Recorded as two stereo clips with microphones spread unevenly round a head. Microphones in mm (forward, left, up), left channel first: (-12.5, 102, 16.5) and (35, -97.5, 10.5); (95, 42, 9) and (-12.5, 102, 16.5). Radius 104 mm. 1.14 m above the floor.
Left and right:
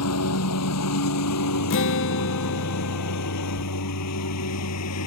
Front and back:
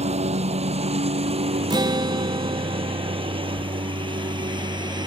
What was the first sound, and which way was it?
A lawn mower, 120° left.